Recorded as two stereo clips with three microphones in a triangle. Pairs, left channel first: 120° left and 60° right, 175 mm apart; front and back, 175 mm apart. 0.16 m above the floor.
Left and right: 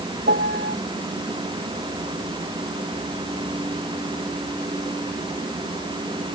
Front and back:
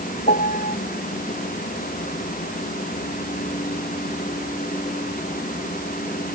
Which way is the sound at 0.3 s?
40° right.